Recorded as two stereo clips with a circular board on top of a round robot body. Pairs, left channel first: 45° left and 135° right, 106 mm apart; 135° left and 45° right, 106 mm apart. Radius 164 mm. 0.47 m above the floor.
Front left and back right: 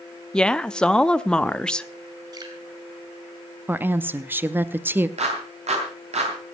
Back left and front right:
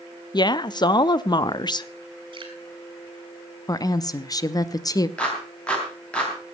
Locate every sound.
0.3 s a woman speaking: 125° left, 0.8 m
2.3 s dripping: 85° right, 3.5 m
3.7 s a woman speaking: 165° left, 0.8 m
5.2 s a clap: 145° right, 3.5 m